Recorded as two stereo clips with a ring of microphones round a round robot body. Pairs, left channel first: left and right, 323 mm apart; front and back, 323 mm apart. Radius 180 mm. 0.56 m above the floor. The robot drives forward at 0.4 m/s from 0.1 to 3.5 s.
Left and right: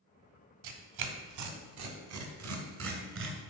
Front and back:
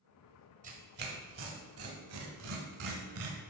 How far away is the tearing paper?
About 1.2 m.